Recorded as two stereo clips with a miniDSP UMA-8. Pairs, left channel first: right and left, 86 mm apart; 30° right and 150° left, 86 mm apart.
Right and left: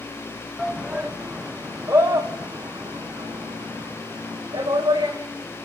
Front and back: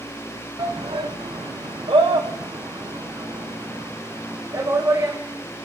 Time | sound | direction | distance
0.6 | a shout | 175° left | 1.3 m